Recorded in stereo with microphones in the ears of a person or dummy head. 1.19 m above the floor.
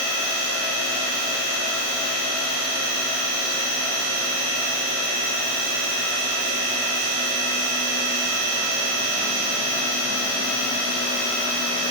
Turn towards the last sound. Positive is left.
No sound to turn to.